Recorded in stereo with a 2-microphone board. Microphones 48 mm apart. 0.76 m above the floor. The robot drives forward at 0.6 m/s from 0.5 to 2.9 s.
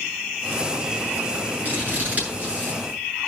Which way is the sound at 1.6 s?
40° right (ahead or behind).